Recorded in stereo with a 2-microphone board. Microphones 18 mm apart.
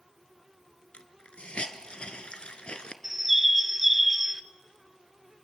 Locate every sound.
0.9 s a hiss: 70° left (ahead or behind), 1.2 m
3.0 s a bird: 10° right (ahead or behind), 0.8 m